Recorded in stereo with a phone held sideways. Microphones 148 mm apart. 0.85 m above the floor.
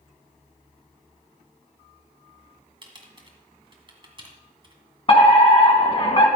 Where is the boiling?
I don't hear boiling.